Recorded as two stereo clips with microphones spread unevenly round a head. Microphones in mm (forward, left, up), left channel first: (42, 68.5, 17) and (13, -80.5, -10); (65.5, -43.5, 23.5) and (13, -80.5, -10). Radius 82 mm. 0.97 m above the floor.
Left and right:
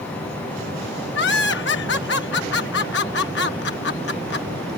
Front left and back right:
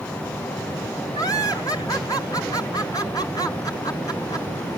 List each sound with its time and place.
1.1 s laughter: 110° left